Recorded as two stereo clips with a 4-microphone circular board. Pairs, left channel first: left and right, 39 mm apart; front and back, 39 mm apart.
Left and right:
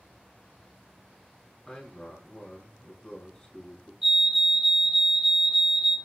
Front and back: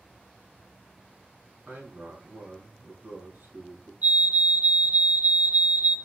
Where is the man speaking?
165° left, 3.5 m.